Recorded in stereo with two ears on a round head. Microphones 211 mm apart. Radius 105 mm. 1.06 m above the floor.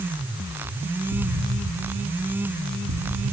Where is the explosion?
70° right (ahead or behind), 1.6 m.